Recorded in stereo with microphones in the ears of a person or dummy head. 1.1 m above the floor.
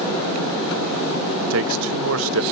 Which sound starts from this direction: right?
A man speaking, at 1.5 s.